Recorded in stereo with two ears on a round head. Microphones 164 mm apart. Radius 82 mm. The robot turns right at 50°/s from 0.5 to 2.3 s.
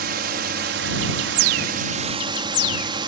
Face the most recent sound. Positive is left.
turn(degrees=-30)